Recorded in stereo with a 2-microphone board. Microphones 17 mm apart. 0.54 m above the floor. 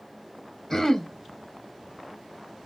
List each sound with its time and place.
0.7 s throat clearing: 25° left (ahead or behind), 0.9 m